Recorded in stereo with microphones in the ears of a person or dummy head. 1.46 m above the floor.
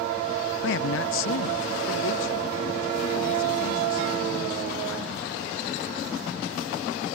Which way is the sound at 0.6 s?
60° left (ahead or behind).